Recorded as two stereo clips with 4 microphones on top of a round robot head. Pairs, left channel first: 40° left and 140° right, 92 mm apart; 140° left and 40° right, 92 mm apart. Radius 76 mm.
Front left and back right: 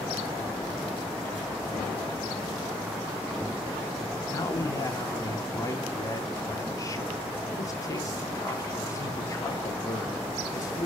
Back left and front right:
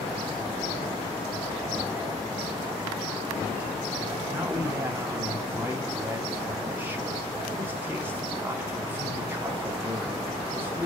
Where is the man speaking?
15° left, 1.0 m.